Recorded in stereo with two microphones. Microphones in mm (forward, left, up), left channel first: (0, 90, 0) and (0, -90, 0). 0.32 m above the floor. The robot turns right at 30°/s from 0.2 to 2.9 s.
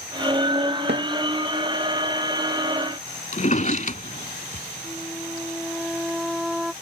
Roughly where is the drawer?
Left.